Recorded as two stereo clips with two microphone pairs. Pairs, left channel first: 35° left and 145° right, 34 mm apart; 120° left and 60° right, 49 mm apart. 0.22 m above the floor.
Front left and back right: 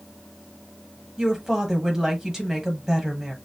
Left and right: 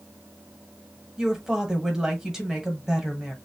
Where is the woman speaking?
115° right, 1.1 m.